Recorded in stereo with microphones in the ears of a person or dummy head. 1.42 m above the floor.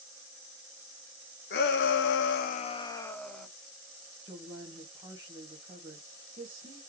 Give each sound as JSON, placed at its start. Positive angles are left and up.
{"t": 1.5, "sound": "a shout", "side_deg": 60, "distance_m": 0.9}
{"t": 4.2, "sound": "a woman speaking", "side_deg": -25, "distance_m": 1.3}